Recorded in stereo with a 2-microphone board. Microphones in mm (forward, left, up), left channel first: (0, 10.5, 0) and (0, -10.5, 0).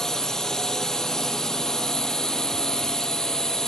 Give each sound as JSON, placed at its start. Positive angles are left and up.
{"t": 0.0, "sound": "a drone", "side_deg": 25}